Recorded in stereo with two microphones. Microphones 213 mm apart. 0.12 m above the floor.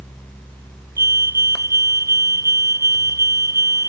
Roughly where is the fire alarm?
Centre.